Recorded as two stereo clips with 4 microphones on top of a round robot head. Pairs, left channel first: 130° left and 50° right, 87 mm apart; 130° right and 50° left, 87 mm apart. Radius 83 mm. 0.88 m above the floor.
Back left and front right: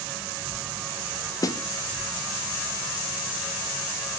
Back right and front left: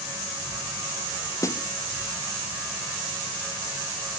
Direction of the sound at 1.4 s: Straight behind.